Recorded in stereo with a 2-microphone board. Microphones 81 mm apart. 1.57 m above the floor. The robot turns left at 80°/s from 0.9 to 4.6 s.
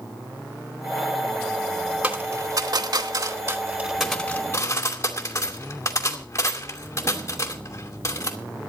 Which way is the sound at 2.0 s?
15° right (ahead or behind).